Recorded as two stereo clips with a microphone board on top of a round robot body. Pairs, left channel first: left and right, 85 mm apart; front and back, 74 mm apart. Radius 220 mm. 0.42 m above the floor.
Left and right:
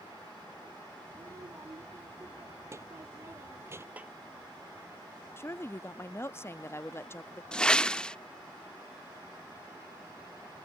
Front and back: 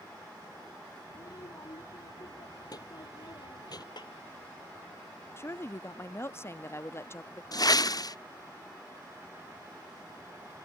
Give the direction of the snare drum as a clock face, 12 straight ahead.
1 o'clock.